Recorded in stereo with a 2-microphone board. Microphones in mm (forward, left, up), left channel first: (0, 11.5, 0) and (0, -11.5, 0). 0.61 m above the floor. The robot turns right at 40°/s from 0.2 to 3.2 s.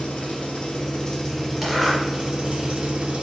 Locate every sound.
0.0 s an engine running: 125° left, 1.4 m; by 3.2 s 115° right, 1.4 m
1.6 s a zipper: 10° right (ahead or behind), 2.5 m; by 2.0 s 25° right (ahead or behind), 2.5 m